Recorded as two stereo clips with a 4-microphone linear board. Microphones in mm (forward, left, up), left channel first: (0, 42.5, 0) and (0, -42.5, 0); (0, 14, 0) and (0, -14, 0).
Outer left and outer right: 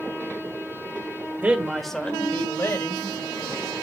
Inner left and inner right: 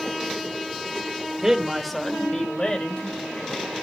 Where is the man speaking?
20° right (ahead or behind), 1.6 m; by 3.8 s 55° left (ahead or behind), 3.5 m.